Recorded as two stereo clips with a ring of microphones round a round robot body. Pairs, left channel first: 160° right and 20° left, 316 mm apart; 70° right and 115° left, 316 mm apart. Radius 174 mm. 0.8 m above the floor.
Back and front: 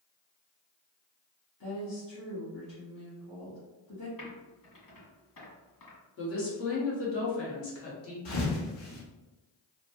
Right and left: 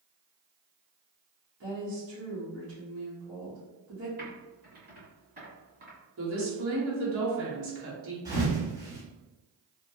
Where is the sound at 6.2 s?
160° left, 1.3 m.